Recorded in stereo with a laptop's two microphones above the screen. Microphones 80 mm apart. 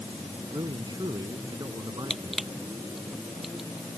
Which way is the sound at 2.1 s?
5° right (ahead or behind).